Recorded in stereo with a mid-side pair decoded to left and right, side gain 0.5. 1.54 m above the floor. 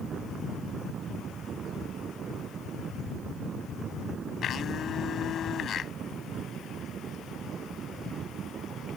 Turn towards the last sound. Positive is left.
turn(degrees=50)